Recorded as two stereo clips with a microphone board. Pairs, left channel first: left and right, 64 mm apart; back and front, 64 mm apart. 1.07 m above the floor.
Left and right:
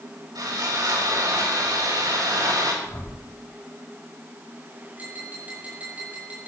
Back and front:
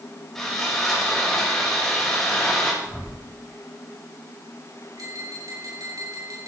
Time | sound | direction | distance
0.3 | sawing | 100° right | 5.5 m
2.8 | a whoosh | 110° left | 5.5 m
5.0 | tapping | 25° right | 6 m